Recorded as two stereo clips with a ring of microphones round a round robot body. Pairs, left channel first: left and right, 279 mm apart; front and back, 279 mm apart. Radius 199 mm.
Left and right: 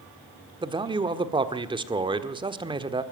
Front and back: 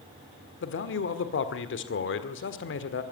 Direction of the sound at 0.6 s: 25° right.